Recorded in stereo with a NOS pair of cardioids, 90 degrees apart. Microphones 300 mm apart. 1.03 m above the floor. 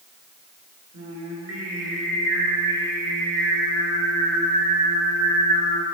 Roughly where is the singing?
Ahead right.